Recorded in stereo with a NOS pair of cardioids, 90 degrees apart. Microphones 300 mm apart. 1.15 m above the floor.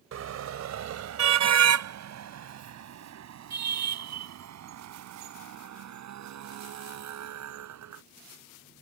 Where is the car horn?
60° right; by 8.0 s 65° right.